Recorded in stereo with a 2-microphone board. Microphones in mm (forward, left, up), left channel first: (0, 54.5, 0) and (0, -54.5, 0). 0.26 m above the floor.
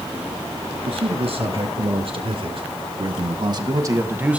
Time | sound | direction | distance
0.8 | a man speaking | 65° right (ahead or behind) | 4.5 m